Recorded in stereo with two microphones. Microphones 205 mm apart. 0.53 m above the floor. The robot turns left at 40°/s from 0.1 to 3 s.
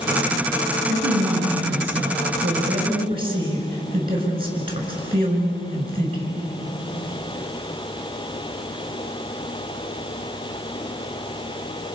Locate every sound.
0.9 s a man speaking: 70° right, 6.5 m; by 6.3 s 155° right, 6.5 m